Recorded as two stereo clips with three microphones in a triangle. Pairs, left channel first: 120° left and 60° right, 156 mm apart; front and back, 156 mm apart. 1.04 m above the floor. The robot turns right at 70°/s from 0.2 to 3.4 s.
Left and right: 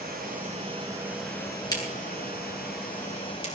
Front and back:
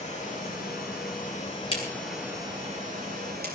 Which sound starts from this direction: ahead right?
Running water, at 0.0 s.